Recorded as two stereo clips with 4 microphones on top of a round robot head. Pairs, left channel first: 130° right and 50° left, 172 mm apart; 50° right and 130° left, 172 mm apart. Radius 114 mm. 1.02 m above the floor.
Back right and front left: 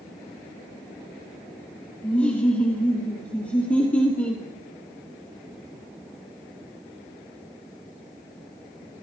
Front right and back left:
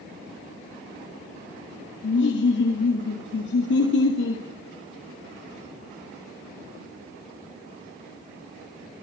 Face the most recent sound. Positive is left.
turn(degrees=-45)